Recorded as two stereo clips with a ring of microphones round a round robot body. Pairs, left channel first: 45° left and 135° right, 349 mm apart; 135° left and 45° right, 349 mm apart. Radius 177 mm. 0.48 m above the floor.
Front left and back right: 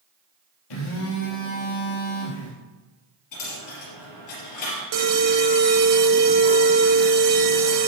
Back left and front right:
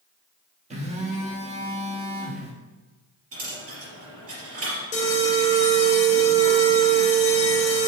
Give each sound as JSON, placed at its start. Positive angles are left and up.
{"t": 0.7, "sound": "a phone buzzing", "azimuth_deg": 25, "distance_m": 2.5}
{"t": 3.3, "sound": "a dropped coin", "azimuth_deg": 5, "distance_m": 3.5}
{"t": 4.9, "sound": "an alarm", "azimuth_deg": -155, "distance_m": 1.5}